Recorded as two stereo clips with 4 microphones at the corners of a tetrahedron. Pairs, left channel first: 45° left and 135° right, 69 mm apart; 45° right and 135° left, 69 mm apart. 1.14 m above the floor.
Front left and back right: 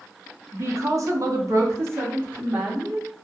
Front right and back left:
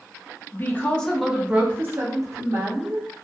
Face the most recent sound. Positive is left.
turn(degrees=155)